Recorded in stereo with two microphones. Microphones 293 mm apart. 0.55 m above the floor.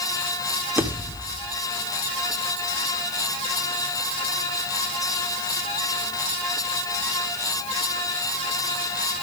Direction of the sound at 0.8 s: 5° right (ahead or behind).